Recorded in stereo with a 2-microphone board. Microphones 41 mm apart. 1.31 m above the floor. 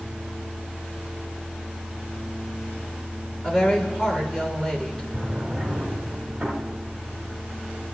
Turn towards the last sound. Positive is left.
turn(degrees=-20)  # may be behind; listen again after turning